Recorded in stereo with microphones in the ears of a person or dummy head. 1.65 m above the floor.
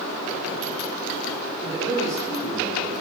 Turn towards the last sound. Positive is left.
turn(degrees=-15)  # may be behind; listen again after turning